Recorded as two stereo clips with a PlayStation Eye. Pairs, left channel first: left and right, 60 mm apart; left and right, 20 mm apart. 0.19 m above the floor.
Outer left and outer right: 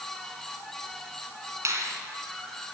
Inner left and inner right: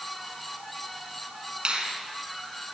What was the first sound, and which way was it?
A finger snap, 50° right (ahead or behind).